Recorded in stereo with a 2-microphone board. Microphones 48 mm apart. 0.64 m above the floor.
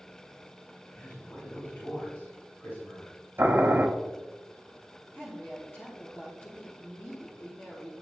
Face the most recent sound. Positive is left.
turn(degrees=50)  # may be behind; listen again after turning